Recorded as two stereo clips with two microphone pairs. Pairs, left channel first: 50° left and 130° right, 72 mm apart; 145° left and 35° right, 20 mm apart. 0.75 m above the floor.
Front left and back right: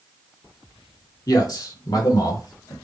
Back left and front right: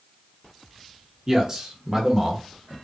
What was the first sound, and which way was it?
A man speaking, 30° left.